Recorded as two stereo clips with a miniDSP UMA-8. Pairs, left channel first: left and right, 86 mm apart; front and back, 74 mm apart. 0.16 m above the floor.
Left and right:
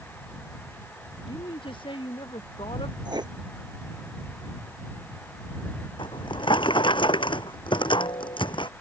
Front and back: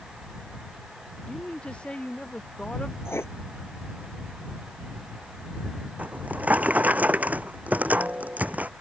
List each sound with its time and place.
1.3 s a woman speaking: 75° left; by 3.0 s 80° left
3.0 s writing: 55° right
6.0 s a drawer: 110° left